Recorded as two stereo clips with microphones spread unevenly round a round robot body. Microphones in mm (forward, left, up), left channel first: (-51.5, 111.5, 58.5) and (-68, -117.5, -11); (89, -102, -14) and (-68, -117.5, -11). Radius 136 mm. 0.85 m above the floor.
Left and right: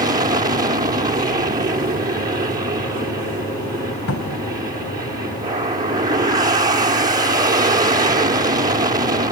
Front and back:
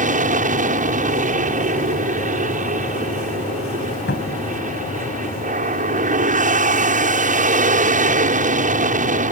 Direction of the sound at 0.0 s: 155° right.